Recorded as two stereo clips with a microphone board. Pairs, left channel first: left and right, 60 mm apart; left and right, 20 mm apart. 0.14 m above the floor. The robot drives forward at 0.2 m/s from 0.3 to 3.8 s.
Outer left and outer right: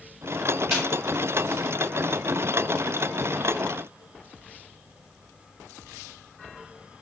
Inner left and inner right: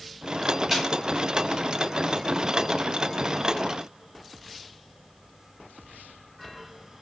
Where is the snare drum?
Centre (ahead or behind), 1.8 m.